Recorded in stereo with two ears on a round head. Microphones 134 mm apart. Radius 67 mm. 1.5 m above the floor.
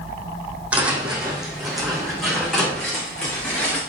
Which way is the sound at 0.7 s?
10° right (ahead or behind).